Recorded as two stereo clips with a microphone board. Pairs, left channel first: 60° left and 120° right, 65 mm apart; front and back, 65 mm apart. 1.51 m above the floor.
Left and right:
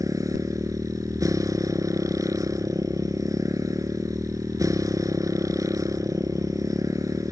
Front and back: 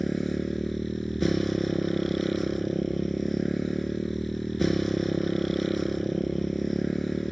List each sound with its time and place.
0.0 s a motorcycle: 90° right